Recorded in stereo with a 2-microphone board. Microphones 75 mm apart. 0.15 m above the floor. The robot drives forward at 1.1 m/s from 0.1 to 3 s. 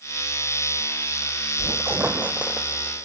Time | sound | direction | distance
1.6 | a squeak | 45° right (ahead or behind) | 0.7 m